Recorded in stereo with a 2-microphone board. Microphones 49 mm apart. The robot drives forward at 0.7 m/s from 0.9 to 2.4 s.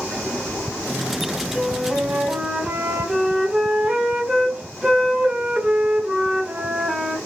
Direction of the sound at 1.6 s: 10° right (ahead or behind).